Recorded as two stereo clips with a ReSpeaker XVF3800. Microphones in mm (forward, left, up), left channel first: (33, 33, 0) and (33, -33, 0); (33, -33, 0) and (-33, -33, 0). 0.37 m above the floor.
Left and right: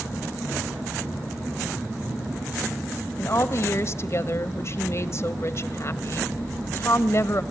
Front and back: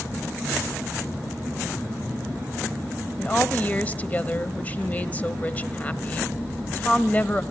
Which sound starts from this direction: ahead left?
A woman speaking, at 3.2 s.